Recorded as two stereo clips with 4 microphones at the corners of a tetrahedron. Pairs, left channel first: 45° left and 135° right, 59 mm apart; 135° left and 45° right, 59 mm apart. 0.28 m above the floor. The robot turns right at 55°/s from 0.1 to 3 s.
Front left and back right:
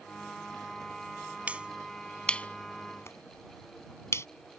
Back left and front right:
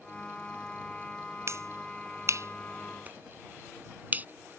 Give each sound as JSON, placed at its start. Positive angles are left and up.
{"t": 1.5, "sound": "a finger snap", "azimuth_deg": -70}